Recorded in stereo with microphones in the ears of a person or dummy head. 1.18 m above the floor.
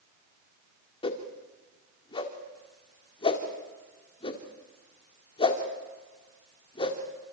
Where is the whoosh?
30° left (ahead or behind), 2.0 m.